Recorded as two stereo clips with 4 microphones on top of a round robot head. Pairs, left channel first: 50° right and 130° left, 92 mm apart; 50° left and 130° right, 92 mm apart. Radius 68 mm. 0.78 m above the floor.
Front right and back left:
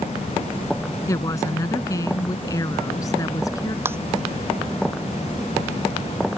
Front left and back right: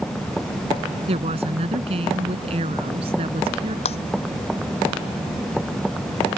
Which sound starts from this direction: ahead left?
Breaking glass, at 3.9 s.